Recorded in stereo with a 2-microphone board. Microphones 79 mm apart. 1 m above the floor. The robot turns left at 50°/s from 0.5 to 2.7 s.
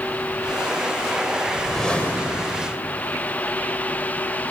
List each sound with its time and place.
1.5 s a whoosh: 170° right, 2.5 m; by 2.8 s 130° left, 2.5 m